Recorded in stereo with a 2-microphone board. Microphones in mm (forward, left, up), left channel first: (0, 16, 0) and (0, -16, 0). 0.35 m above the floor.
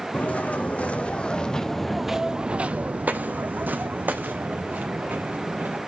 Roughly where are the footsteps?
Left.